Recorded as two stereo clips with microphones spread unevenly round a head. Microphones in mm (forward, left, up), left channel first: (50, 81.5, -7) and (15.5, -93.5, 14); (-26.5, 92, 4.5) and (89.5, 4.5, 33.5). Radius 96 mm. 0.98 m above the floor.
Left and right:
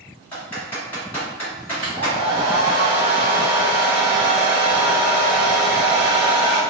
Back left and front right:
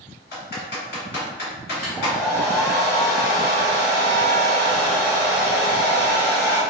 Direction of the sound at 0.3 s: 160° left.